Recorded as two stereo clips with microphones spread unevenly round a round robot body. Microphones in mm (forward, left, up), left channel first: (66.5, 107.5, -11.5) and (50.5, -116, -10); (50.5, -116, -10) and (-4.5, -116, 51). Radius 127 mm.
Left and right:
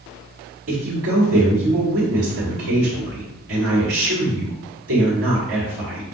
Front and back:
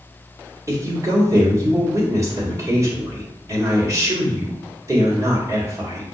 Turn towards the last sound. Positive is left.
turn(degrees=-115)